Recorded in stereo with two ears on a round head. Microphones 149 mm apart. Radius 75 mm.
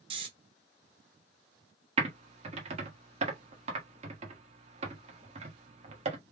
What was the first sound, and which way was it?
Snoring, 30° right (ahead or behind).